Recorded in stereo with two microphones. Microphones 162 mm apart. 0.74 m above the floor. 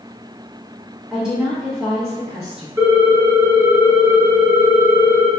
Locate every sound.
1.1 s a woman speaking: 5° right (ahead or behind), 0.8 m
2.8 s a ringtone: 15° right (ahead or behind), 0.7 m